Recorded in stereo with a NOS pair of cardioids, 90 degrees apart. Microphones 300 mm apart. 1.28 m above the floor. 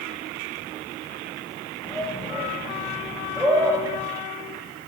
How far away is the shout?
About 9 m.